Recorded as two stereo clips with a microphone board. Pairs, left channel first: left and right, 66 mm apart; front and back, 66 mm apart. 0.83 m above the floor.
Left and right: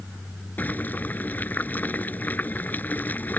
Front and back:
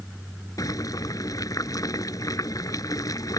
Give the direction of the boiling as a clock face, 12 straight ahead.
11 o'clock.